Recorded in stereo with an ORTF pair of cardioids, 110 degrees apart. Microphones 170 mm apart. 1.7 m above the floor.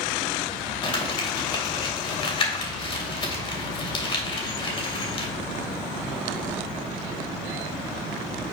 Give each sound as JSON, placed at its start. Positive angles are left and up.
{"t": 0.8, "sound": "crumpling", "azimuth_deg": 30, "distance_m": 2.5}